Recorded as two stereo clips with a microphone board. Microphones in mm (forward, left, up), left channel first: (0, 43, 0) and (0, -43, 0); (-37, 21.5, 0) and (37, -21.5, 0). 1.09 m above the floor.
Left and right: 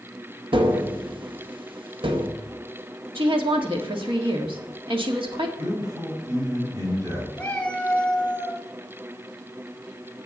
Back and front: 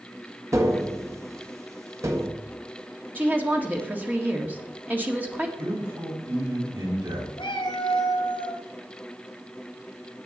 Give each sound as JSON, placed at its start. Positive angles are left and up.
{"t": 0.5, "sound": "tapping", "azimuth_deg": -85, "distance_m": 1.3}
{"t": 3.1, "sound": "a woman speaking", "azimuth_deg": -100, "distance_m": 1.9}
{"t": 5.6, "sound": "a man speaking", "azimuth_deg": -50, "distance_m": 5.5}
{"t": 7.4, "sound": "a cat meowing", "azimuth_deg": 165, "distance_m": 2.0}